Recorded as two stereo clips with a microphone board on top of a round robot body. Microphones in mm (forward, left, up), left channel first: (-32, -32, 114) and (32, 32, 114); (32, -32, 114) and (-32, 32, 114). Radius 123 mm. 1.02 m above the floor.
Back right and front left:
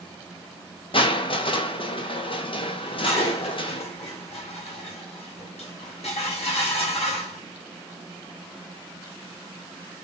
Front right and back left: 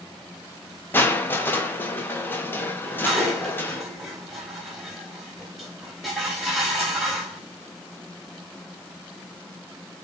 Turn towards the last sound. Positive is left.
turn(degrees=-135)